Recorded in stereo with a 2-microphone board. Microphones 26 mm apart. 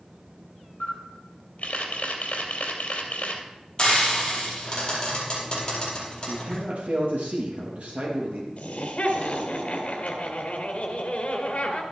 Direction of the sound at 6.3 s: 60° right (ahead or behind).